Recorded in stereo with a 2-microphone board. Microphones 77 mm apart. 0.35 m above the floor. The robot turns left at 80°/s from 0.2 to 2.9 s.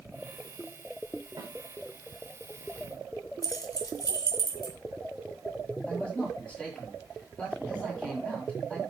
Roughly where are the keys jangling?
Left.